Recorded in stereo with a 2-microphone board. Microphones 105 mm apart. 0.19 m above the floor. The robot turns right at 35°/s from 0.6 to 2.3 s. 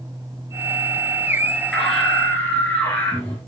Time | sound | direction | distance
1.7 | a scream | centre (ahead or behind) | 3 m